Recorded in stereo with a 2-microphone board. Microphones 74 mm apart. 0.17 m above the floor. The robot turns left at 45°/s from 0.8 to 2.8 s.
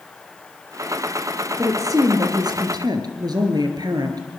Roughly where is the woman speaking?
Ahead right.